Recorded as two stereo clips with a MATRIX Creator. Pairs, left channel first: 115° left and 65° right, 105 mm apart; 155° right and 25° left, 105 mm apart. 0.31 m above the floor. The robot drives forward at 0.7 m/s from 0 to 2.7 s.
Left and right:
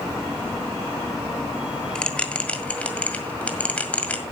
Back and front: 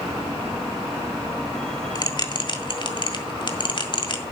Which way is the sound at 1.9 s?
170° right.